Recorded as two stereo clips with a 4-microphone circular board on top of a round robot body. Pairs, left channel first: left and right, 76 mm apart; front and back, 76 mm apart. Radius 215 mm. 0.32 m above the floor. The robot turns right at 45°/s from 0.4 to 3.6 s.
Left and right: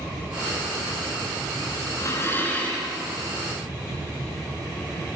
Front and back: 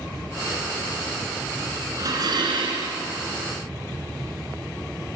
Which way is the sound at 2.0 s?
135° left.